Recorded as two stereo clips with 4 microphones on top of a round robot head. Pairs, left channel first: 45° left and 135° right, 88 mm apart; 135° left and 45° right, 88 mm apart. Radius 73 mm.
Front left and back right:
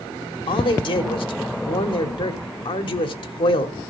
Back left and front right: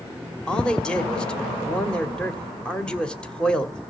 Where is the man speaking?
55° left, 1.8 m.